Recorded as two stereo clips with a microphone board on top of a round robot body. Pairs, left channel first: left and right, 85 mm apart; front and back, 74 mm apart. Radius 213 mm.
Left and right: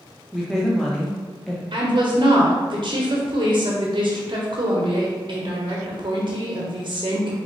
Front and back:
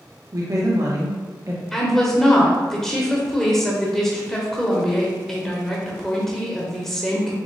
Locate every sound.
0.3 s a woman speaking: 175° left, 1.0 m
1.7 s a woman speaking: 85° right, 1.2 m